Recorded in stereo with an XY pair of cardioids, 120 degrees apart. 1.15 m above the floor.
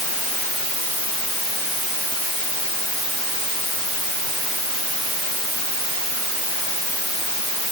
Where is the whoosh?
No whoosh in this recording.